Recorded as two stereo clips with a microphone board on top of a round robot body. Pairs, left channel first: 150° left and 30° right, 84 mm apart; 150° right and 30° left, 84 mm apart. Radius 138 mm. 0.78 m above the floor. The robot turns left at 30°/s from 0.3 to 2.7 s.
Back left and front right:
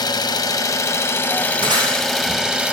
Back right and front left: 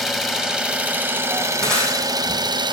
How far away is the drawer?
I don't hear a drawer.